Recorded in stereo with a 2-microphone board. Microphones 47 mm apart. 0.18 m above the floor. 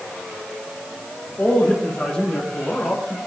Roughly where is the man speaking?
Left.